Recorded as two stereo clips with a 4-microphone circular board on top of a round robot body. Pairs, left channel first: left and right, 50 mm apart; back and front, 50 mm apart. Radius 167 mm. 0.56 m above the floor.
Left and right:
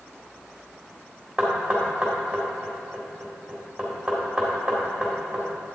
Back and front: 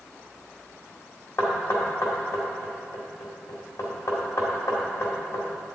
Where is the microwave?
No microwave in this recording.